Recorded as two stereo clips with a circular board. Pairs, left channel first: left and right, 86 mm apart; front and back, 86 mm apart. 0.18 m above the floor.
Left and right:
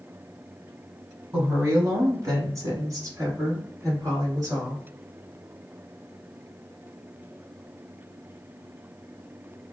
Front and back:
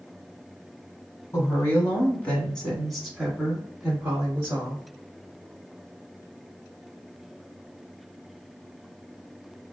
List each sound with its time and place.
1.3 s a woman speaking: 35° right, 1.4 m; by 4.8 s 130° right, 1.8 m